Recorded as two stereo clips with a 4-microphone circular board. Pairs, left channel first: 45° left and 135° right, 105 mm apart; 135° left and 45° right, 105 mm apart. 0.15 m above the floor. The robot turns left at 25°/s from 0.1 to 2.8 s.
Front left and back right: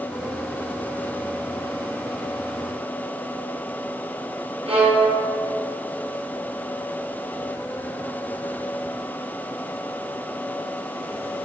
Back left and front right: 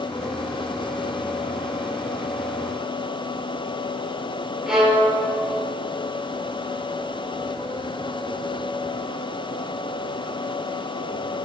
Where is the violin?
130° right, 1.8 m.